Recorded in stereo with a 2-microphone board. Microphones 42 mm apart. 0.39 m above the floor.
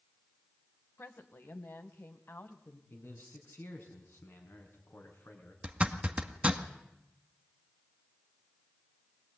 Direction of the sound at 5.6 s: 30° right (ahead or behind).